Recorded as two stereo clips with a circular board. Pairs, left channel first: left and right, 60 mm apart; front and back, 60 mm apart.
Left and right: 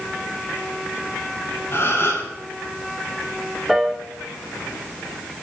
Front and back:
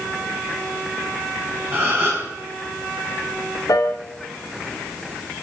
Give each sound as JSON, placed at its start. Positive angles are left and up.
{"t": 1.7, "sound": "a gasp", "azimuth_deg": 135, "distance_m": 6.0}
{"t": 3.7, "sound": "a piano", "azimuth_deg": -5, "distance_m": 2.0}